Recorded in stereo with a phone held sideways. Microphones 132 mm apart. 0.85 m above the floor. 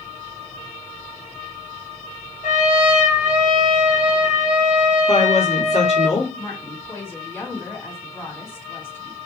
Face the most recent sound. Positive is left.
turn(degrees=20)  # may be behind; listen again after turning